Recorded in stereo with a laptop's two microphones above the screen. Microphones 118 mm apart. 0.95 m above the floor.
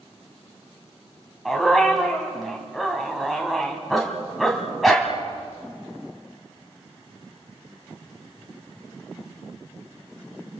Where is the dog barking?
Centre (ahead or behind), 2.5 m.